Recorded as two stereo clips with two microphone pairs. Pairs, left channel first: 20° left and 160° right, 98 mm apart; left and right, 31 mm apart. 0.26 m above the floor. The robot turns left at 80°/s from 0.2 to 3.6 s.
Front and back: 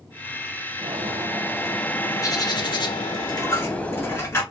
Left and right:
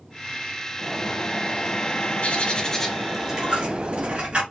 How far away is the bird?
About 0.7 m.